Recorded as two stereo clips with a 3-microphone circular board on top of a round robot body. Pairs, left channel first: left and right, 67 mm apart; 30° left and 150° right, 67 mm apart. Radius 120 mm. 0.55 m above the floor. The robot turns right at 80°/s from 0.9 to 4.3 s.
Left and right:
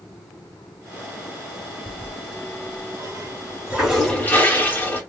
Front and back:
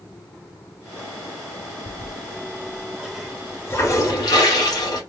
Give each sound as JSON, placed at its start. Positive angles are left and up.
{"t": 1.9, "sound": "a toilet flushing", "azimuth_deg": -165, "distance_m": 2.5}